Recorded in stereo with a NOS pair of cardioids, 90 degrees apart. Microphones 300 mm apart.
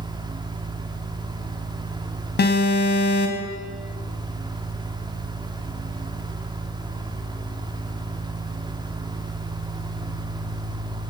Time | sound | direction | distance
0.0 | a fan | 15° right | 2 m
2.4 | an alarm | 35° left | 4.5 m